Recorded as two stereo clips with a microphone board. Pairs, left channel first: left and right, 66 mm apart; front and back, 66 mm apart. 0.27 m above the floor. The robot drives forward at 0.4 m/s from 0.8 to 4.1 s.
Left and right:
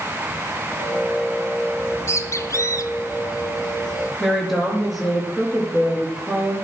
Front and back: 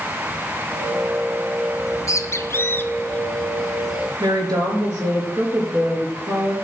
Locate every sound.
1.8 s a bird: 35° left, 1.0 m; by 4.1 s 105° left, 0.6 m
4.2 s a woman speaking: straight behind, 3.5 m